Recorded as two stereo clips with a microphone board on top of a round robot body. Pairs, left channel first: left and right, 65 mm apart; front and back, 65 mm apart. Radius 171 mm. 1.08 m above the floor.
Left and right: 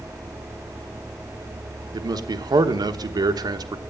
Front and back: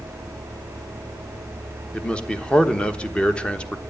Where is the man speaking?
75° right, 1.2 m.